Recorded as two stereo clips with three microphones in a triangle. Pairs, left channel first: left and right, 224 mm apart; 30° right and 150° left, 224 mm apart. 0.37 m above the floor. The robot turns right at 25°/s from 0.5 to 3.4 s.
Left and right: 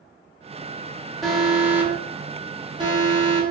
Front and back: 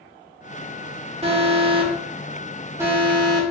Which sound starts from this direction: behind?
An alarm, at 1.2 s.